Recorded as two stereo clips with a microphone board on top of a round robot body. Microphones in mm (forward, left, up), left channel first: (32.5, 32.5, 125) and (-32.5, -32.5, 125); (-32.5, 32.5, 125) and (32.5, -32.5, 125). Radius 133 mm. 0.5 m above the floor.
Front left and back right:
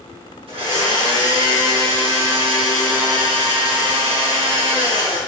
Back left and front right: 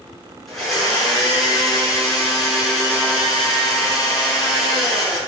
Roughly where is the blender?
Behind right.